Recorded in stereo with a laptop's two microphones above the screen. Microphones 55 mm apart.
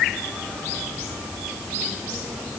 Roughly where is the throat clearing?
No throat clearing in this recording.